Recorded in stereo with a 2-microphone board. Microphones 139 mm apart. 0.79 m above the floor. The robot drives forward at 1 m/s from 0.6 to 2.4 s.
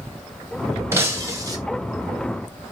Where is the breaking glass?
20° right (ahead or behind), 1.9 m; by 1.6 s 30° right (ahead or behind), 1.3 m.